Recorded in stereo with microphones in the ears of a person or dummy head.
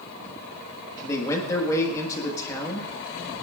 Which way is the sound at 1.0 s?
15° left (ahead or behind).